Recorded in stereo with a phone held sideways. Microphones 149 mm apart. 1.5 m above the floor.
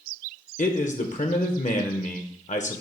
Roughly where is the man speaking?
Left.